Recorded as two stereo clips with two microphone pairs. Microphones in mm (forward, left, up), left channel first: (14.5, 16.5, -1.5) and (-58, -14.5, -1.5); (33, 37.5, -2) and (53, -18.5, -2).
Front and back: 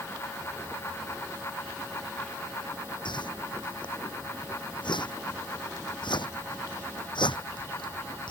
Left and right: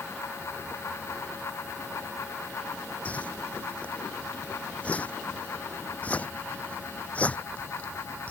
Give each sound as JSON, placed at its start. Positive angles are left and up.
{"t": 3.0, "sound": "a whoosh", "azimuth_deg": 40}